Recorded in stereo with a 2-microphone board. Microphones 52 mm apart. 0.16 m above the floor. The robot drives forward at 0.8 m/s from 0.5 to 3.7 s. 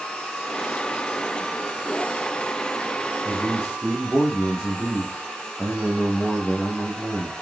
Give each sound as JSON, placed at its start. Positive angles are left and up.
{"t": 3.2, "sound": "a man speaking", "side_deg": 10, "distance_m": 5.5}